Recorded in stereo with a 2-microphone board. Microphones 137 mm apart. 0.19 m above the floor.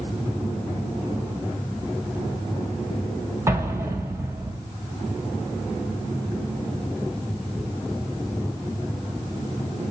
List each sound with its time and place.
3.5 s an explosion: 20° right (ahead or behind), 0.7 m